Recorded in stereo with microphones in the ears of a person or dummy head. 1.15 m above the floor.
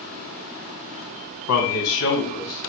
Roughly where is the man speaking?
Left.